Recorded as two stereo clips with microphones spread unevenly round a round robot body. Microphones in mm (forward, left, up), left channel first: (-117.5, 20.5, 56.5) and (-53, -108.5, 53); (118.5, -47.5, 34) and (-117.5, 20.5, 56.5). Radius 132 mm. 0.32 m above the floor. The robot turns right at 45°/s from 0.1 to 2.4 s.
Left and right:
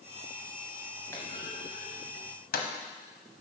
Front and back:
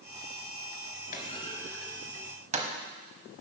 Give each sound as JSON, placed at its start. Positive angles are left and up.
{"t": 1.1, "sound": "a clunk", "azimuth_deg": 40, "distance_m": 1.0}